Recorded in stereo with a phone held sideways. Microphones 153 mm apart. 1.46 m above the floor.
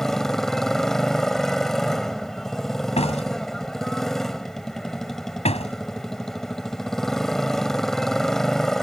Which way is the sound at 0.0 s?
Centre (ahead or behind).